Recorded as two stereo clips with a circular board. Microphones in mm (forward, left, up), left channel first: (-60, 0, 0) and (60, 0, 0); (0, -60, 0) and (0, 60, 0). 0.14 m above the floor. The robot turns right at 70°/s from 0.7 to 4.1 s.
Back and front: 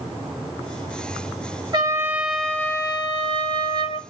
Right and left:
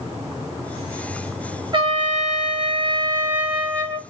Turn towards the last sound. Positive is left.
turn(degrees=-145)